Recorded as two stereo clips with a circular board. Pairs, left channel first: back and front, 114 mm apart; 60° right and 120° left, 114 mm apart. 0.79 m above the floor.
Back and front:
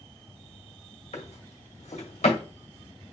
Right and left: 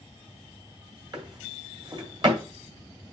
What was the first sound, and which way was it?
A drawer, 170° left.